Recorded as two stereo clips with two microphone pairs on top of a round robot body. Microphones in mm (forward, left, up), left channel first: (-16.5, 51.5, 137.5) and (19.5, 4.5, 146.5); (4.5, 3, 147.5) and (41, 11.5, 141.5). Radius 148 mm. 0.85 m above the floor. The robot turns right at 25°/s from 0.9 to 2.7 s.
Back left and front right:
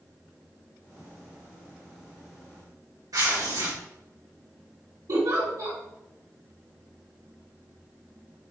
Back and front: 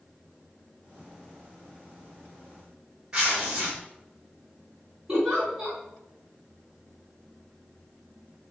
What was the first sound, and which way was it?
Tearing paper, 55° right.